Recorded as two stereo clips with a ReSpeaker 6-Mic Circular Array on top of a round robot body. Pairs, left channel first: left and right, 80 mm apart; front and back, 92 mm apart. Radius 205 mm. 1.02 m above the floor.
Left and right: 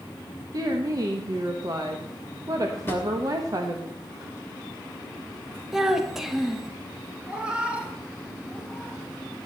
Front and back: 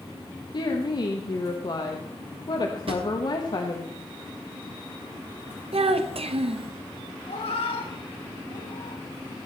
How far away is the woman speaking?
About 1.3 m.